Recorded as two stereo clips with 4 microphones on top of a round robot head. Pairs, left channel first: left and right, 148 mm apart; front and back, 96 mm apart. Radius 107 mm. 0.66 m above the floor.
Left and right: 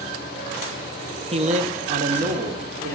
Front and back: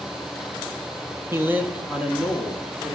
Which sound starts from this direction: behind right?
A man speaking, at 1.3 s.